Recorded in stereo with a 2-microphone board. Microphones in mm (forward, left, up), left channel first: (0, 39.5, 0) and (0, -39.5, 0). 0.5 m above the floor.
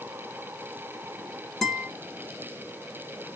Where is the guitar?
Centre (ahead or behind), 2.5 m.